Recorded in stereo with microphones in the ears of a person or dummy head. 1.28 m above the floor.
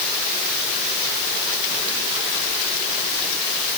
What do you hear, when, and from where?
Only background noise.